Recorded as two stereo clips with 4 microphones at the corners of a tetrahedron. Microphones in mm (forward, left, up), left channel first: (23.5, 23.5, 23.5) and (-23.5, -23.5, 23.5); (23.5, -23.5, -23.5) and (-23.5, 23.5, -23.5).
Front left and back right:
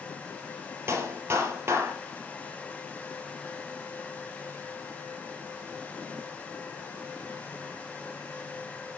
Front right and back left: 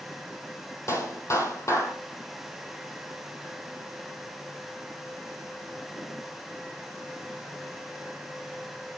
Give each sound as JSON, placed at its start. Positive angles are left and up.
{"t": 0.9, "sound": "a clap", "azimuth_deg": -85, "distance_m": 3.0}